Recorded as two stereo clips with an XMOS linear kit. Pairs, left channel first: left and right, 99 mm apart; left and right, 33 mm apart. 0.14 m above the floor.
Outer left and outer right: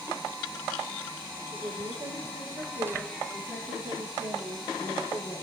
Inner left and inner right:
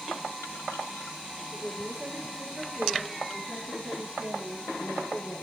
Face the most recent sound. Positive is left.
turn(degrees=-75)  # may be behind; listen again after turning